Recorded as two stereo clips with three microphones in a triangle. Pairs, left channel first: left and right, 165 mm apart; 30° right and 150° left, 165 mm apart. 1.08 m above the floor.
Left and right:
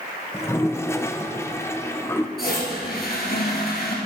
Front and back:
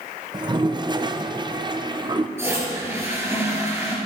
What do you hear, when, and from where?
0.3 s a toilet flushing: 140° left, 0.6 m
2.4 s a toilet flushing: 75° left, 3 m